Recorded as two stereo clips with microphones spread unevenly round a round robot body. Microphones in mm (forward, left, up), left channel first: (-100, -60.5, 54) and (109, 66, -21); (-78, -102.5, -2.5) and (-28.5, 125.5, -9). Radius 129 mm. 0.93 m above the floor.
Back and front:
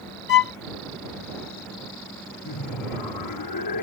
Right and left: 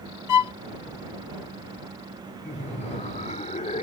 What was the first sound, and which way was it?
A violin, 95° right.